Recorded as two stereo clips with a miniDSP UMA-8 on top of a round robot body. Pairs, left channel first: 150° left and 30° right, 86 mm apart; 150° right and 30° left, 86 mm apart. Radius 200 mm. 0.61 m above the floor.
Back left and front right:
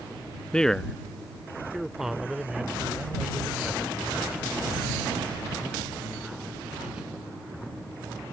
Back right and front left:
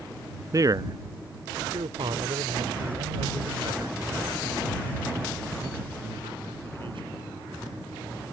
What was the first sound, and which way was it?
A man speaking, 70° left.